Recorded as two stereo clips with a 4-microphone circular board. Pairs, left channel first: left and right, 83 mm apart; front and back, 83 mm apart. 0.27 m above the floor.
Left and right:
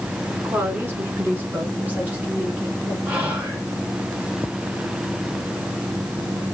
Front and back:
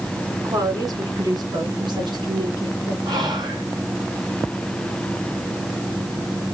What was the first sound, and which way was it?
A woman speaking, 145° right.